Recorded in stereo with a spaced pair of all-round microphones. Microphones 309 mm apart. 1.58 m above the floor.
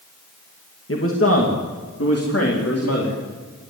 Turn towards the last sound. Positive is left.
turn(degrees=50)  # may be behind; listen again after turning